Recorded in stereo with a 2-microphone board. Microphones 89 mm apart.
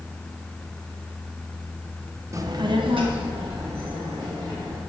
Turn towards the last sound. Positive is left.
turn(degrees=-80)